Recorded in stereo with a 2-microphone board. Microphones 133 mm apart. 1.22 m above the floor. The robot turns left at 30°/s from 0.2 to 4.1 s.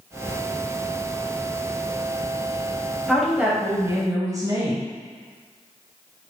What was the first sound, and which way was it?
A woman speaking, straight ahead.